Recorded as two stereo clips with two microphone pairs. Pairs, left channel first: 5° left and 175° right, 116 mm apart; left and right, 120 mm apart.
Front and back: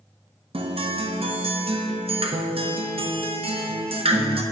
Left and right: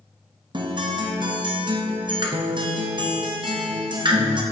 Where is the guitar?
140° right, 0.8 m.